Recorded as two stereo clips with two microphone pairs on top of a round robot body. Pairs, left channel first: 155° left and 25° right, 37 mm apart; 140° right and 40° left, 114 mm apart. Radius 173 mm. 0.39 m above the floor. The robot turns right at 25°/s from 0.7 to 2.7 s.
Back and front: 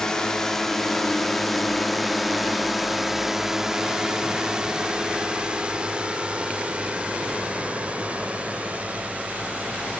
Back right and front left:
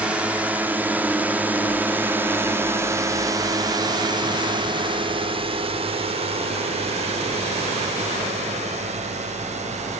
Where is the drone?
120° left; by 10.0 s 35° left.